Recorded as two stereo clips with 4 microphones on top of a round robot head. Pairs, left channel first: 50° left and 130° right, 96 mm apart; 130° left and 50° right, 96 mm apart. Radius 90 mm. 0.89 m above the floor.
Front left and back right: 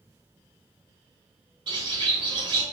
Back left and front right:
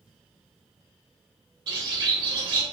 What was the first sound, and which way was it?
A bird, 90° right.